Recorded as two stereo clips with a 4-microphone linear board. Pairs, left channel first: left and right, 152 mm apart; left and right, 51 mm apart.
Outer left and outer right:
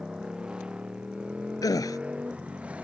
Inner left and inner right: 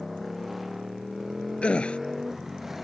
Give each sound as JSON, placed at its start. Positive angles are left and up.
{"t": 0.0, "sound": "a motorcycle", "side_deg": -5}
{"t": 1.6, "sound": "a gasp", "side_deg": 25}